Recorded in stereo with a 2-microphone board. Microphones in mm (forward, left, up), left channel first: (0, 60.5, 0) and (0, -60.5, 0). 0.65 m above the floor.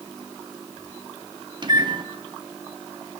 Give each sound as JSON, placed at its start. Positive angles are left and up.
{"t": 1.6, "sound": "a microwave", "side_deg": -35, "distance_m": 0.5}